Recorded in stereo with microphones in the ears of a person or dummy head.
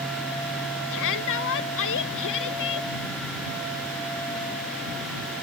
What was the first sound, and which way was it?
A shout, 65° left (ahead or behind).